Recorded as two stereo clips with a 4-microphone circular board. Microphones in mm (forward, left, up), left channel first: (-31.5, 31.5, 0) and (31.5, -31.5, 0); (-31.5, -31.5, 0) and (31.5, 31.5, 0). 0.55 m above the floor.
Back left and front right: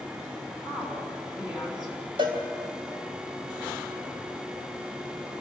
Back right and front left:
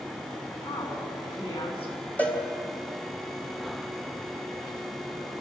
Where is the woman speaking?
130° right, 6.5 m.